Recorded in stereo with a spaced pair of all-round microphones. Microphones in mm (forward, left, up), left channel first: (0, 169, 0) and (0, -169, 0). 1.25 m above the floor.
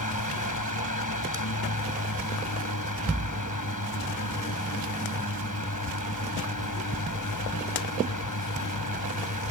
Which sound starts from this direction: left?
A fan, at 0.0 s.